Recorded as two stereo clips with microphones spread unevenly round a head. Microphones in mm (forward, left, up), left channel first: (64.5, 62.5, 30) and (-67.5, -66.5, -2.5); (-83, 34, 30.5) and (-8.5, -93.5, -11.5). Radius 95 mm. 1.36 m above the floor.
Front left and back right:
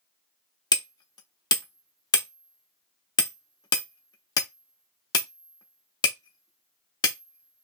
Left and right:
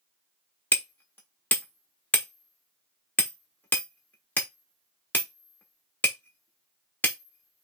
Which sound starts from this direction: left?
Hammering, at 0.7 s.